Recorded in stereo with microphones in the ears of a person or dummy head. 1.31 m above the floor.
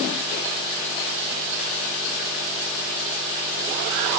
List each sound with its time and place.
Only background noise.